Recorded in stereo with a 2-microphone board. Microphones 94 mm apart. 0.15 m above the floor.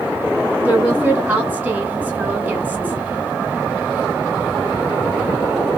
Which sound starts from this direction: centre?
A woman speaking, at 0.7 s.